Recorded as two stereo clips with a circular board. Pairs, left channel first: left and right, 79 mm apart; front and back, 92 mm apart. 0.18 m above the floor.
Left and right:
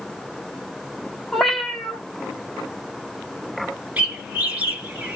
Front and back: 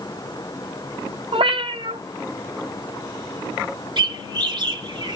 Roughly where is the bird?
Behind.